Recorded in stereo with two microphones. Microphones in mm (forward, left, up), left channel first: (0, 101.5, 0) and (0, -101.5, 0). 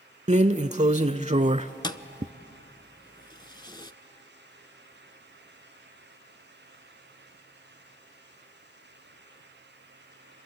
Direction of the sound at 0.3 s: 35° right (ahead or behind).